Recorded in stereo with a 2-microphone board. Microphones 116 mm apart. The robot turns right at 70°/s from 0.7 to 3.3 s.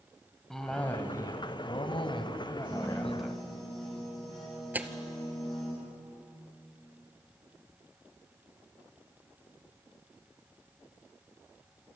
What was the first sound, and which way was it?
A cough, 5° left.